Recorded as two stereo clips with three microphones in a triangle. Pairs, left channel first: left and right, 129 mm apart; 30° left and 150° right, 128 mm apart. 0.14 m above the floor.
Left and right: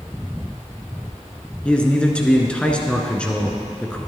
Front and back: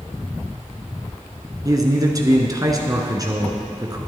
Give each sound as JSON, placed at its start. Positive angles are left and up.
{"t": 1.6, "sound": "a man speaking", "azimuth_deg": 170, "distance_m": 1.7}